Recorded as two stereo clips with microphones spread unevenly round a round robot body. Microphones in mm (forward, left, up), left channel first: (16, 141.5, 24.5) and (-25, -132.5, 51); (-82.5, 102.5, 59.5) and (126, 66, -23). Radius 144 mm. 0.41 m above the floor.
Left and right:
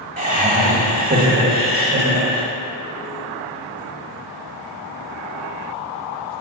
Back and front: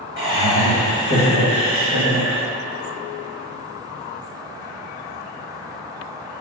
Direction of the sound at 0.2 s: 160° right.